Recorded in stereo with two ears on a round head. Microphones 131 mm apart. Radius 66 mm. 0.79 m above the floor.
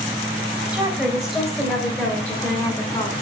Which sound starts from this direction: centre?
A woman speaking, at 0.7 s.